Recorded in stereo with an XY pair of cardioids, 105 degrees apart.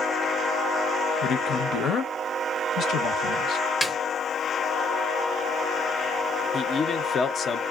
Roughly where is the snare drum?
Ahead.